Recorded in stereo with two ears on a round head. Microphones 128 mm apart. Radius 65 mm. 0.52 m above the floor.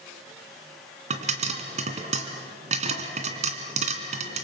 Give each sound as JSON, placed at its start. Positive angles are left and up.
{"t": 1.1, "sound": "a pop", "side_deg": -50, "distance_m": 2.5}